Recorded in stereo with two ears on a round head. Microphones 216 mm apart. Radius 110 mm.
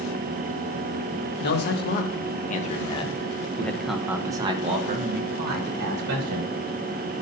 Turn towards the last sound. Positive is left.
turn(degrees=-60)  # may be behind; listen again after turning